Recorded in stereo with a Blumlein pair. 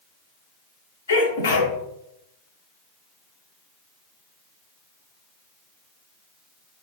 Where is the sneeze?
70° left, 0.9 m.